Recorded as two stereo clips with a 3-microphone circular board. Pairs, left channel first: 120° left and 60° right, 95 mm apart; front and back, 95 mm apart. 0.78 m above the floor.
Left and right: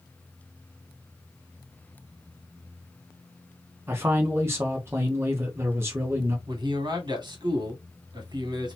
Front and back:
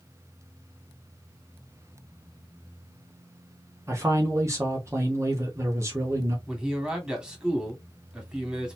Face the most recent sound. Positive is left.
turn(degrees=-100)